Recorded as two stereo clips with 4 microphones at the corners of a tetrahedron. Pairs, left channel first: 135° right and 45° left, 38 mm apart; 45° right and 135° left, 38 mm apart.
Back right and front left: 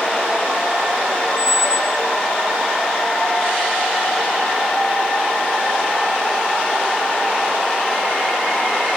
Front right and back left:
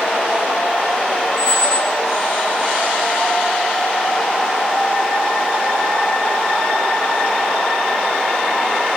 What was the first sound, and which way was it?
A squeak, 110° left.